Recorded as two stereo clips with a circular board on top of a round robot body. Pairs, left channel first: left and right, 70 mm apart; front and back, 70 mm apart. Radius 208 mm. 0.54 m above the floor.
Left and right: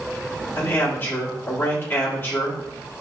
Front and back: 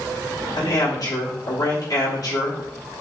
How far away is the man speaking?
About 1.4 m.